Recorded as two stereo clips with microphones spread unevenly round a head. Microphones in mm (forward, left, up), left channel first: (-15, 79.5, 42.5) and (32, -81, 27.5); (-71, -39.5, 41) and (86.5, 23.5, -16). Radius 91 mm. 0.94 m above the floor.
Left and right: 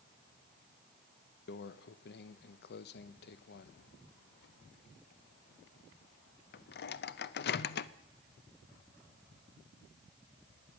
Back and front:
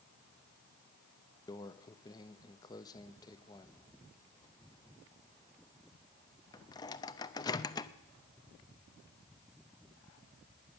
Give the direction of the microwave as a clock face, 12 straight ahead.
8 o'clock.